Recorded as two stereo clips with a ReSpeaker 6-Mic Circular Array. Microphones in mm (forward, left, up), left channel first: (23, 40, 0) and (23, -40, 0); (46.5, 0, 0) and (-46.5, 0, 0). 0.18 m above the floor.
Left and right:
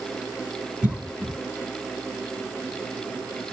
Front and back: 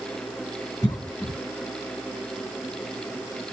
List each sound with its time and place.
0.8 s a cough: 20° right, 2 m